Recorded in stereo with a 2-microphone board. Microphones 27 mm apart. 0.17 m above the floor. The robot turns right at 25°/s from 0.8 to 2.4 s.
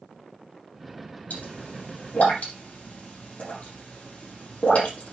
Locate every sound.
1.3 s a pop: 75° left (ahead or behind), 5.5 m; by 5.1 s 55° left (ahead or behind), 5.5 m